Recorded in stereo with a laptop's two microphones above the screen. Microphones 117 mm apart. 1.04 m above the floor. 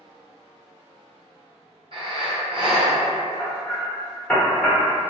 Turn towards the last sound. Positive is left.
turn(degrees=5)  # may be behind; listen again after turning